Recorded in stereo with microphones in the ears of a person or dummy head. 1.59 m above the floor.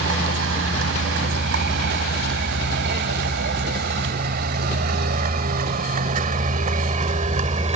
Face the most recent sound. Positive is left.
turn(degrees=-35)  # may be behind; listen again after turning